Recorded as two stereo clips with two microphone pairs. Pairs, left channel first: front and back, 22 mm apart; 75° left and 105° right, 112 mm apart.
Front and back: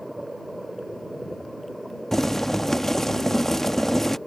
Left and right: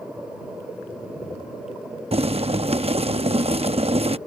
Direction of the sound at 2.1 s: 80° right.